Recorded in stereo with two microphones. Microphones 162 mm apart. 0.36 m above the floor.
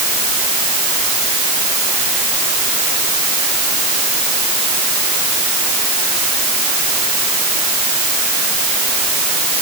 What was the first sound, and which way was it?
Only background noise.